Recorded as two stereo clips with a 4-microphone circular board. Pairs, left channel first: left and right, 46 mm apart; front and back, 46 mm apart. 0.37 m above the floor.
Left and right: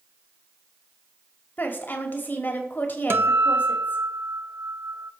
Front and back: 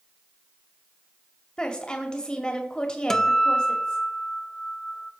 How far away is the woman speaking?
About 1.7 m.